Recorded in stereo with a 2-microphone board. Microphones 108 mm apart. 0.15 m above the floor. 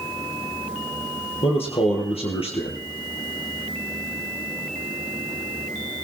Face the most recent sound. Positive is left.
turn(degrees=65)  # may be behind; listen again after turning